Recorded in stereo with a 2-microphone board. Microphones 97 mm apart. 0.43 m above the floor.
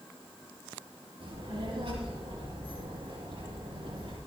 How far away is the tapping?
No tapping in this recording.